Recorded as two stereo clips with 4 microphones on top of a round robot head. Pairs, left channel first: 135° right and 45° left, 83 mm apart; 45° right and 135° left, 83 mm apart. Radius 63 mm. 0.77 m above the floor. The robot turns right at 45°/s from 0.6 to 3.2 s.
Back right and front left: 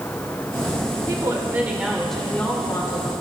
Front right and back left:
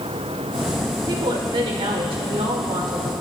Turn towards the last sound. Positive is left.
turn(degrees=-170)